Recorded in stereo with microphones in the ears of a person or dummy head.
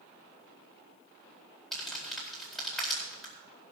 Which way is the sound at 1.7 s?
5° left (ahead or behind).